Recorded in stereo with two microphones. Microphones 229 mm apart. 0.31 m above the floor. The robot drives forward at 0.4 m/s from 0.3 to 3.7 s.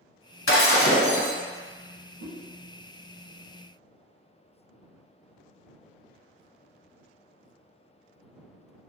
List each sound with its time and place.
0.5 s breaking glass: 65° left (ahead or behind), 0.7 m; by 1.3 s 85° left, 0.7 m
2.2 s a whoosh: 65° left (ahead or behind), 0.8 m; by 2.3 s 60° left (ahead or behind), 0.9 m